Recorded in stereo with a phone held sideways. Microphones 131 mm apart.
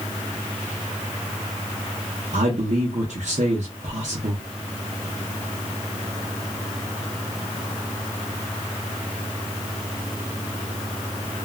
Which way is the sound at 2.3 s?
65° right (ahead or behind).